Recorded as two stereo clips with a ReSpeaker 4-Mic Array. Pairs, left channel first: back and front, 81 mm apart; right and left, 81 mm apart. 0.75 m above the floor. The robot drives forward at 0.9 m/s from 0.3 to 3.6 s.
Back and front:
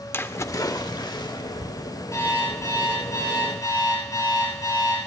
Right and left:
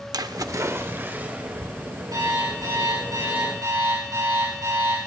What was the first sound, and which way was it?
A splash, 120° left.